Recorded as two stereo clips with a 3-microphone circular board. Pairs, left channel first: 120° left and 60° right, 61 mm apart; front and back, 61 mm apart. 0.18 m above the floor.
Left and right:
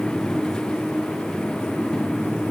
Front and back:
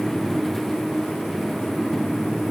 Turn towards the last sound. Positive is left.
No sound to turn to.